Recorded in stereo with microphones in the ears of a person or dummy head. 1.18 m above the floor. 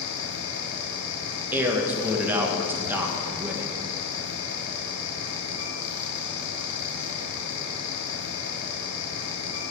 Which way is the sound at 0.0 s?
65° left (ahead or behind).